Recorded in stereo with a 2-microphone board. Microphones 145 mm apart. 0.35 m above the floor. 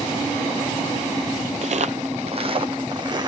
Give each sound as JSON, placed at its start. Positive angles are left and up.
{"t": 1.6, "sound": "footsteps", "side_deg": -55, "distance_m": 0.5}